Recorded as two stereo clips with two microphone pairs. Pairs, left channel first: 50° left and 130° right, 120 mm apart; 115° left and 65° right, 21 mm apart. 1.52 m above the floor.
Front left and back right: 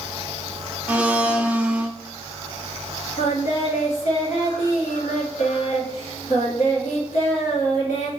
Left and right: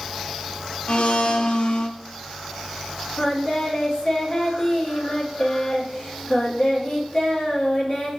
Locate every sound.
0.9 s a blender: 150° left, 0.5 m
3.2 s singing: 65° left, 1.5 m